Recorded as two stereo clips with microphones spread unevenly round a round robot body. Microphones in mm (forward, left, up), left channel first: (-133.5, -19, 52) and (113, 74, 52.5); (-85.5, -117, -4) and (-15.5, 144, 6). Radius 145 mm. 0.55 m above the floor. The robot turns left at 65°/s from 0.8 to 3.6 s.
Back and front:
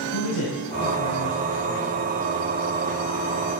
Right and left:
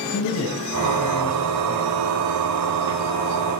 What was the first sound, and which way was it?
A man speaking, 140° right.